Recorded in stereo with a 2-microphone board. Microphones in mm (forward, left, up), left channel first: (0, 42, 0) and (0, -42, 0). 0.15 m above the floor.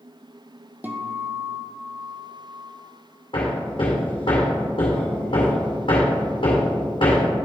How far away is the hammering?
About 2 m.